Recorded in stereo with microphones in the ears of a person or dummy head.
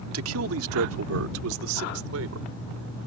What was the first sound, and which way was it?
A man speaking, 85° right.